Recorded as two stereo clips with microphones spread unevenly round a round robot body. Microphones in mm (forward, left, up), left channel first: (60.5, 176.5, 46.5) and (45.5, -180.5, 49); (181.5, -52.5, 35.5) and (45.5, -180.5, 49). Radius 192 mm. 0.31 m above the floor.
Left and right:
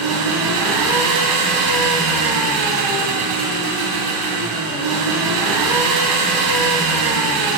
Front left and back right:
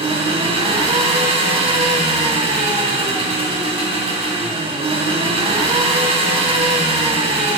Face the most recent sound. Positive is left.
turn(degrees=-80)